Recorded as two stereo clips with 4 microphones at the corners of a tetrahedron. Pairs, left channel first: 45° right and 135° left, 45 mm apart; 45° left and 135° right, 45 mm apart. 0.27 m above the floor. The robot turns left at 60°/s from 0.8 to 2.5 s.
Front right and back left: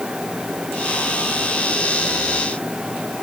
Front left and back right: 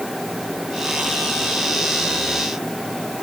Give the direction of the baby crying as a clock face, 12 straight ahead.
I don't hear a baby crying.